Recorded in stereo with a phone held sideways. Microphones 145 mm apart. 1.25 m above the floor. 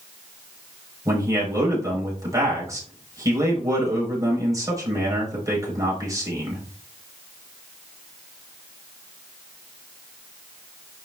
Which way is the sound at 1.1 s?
25° right (ahead or behind).